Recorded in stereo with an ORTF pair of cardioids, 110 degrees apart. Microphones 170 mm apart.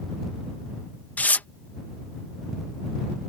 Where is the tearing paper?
10° left.